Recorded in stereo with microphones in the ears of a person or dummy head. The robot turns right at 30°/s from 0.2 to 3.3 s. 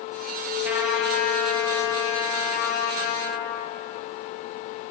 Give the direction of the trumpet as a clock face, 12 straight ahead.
12 o'clock.